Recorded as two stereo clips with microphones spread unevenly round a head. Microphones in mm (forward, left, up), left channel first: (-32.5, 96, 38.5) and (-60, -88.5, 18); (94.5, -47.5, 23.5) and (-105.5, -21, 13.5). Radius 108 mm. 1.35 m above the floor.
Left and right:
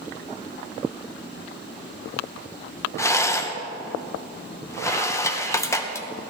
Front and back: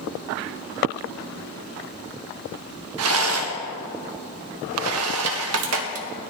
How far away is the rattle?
About 1.3 m.